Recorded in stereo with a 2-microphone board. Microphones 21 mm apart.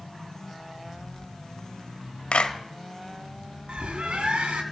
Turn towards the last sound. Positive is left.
turn(degrees=-60)  # may be behind; listen again after turning